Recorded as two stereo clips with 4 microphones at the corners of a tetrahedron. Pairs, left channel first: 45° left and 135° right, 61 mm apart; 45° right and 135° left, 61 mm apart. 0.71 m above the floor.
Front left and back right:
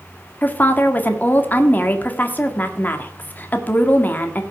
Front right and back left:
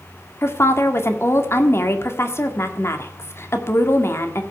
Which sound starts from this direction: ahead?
A woman speaking, at 0.4 s.